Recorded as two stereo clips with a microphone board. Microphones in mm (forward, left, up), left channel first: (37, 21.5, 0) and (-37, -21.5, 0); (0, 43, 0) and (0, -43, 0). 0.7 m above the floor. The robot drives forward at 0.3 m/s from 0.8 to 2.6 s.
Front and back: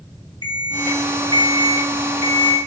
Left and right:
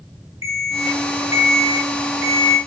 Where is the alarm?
140° right, 1.6 m; by 2.6 s 150° right, 2 m.